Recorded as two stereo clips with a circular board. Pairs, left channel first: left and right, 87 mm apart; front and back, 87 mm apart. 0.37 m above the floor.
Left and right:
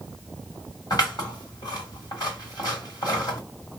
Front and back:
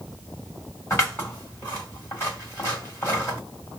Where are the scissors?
60° left, 1.8 m.